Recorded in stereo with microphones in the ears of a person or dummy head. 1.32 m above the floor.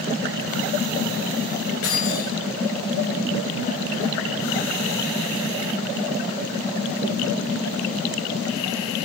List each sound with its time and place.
1.8 s keys jangling: 80° left, 5.5 m